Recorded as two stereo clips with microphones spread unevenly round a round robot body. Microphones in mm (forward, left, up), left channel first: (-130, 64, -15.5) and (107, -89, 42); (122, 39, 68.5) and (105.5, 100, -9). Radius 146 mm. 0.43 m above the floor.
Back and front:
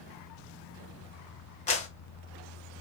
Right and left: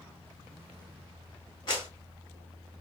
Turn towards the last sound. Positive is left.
turn(degrees=-155)